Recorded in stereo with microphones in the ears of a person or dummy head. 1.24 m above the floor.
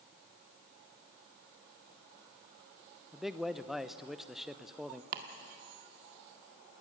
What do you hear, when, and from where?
3.1 s a man speaking: centre (ahead or behind), 0.7 m
5.1 s chopping: 55° right (ahead or behind), 1.6 m